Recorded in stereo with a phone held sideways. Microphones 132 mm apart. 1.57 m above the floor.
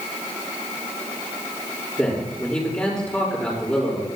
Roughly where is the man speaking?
Centre.